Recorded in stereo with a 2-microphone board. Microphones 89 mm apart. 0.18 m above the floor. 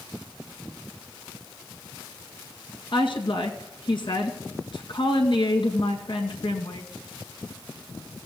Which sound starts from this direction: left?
A woman speaking, at 2.9 s.